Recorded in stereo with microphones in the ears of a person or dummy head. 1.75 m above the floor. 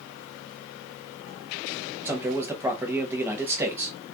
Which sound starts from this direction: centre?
A man speaking, at 2.0 s.